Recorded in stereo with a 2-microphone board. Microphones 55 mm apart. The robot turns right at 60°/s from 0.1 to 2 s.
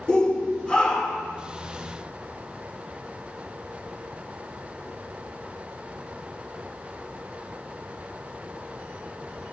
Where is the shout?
20° left (ahead or behind), 1.2 m; by 1.3 s centre (ahead or behind), 1.2 m.